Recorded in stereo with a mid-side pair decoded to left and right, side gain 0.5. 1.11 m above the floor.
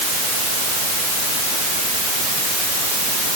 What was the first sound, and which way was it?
Only background noise.